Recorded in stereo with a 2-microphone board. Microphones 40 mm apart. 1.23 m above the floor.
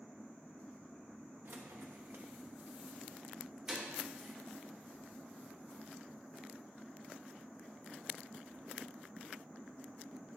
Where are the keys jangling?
60° right (ahead or behind), 1.3 m; by 4.3 s 10° right (ahead or behind), 3.5 m.